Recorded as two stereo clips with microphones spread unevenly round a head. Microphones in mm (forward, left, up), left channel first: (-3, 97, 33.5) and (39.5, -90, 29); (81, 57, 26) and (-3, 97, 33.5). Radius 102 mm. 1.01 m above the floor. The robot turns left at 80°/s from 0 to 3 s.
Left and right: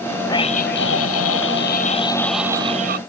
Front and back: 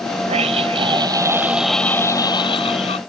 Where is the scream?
Straight behind; by 3.0 s 40° right.